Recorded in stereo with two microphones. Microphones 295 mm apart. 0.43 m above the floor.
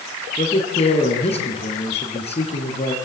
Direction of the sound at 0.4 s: 20° left (ahead or behind).